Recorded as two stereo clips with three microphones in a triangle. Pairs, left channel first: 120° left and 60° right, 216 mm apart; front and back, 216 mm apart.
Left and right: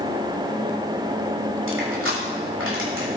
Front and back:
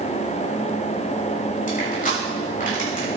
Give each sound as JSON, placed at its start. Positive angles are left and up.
{"t": 1.7, "sound": "crushing", "azimuth_deg": -50, "distance_m": 6.5}